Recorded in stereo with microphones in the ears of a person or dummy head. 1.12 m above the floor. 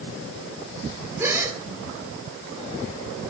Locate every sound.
1.2 s a gasp: 15° right (ahead or behind), 1.7 m